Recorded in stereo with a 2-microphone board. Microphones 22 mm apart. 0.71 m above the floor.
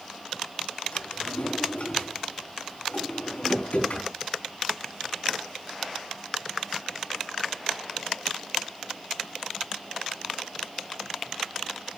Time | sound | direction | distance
0.9 | a drawer | 85° left | 3.5 m